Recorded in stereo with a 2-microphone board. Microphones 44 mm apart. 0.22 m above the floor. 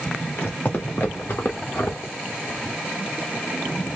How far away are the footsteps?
About 2.5 m.